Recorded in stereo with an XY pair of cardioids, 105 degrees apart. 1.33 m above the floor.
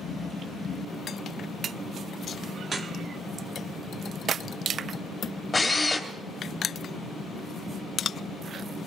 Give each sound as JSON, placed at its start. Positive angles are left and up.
{"t": 2.6, "sound": "dripping", "azimuth_deg": -35, "distance_m": 1.4}
{"t": 5.5, "sound": "a drill", "azimuth_deg": 20, "distance_m": 2.5}